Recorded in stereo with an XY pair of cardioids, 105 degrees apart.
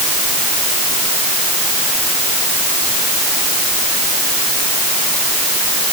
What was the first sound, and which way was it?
Only background noise.